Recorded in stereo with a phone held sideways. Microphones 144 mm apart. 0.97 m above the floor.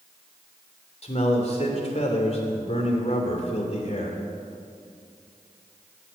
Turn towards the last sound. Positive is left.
turn(degrees=50)  # may be behind; listen again after turning